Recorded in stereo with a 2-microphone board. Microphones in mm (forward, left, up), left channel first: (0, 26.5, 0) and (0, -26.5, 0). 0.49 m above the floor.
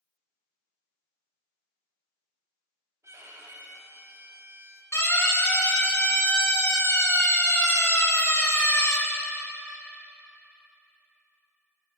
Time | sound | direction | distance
3.0 | a violin | 65° right (ahead or behind) | 2 m
4.9 | a siren | 70° left (ahead or behind) | 5.5 m